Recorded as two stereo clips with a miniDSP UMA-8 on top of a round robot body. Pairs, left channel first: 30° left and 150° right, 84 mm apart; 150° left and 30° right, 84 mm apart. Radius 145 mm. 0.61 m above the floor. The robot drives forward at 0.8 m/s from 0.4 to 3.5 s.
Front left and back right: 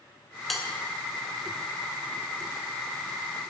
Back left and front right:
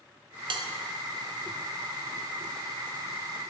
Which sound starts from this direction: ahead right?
A bell, at 0.5 s.